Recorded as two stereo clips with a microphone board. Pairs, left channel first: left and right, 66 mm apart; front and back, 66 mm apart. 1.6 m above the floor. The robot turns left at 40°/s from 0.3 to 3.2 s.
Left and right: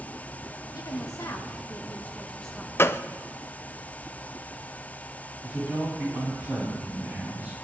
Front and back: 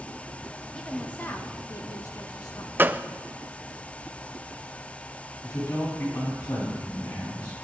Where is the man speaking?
15° right, 9.5 m.